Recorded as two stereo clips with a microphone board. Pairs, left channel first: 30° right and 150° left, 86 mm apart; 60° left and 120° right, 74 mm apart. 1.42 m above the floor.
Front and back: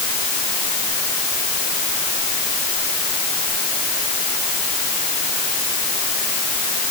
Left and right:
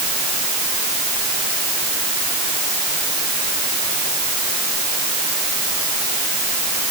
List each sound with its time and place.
Only background noise.